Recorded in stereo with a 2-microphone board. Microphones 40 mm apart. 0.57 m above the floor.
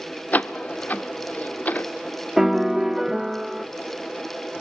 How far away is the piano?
About 0.7 m.